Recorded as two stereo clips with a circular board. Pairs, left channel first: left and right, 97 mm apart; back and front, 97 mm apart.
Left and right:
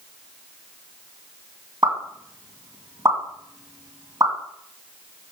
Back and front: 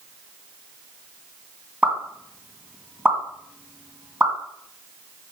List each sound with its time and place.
1.8 s a pop: 60° right, 1.8 m